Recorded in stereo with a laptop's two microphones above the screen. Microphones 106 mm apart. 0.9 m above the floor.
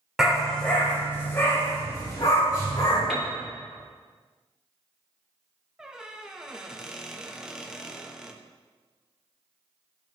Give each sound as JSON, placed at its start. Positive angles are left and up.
{"t": 0.2, "sound": "a dog barking", "side_deg": -5, "distance_m": 1.1}
{"t": 3.1, "sound": "a piano", "side_deg": -5, "distance_m": 1.5}
{"t": 5.8, "sound": "a squeak", "side_deg": -5, "distance_m": 0.5}